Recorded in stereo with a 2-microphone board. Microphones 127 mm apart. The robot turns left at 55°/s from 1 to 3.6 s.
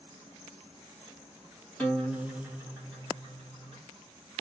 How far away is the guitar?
About 1.4 m.